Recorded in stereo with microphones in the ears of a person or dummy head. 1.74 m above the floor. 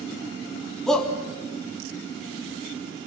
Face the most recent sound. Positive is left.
turn(degrees=0)  # may be behind; listen again after turning